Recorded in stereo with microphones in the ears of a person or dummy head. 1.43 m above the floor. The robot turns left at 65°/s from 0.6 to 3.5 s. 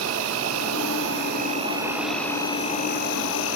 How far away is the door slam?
I don't hear a door slam.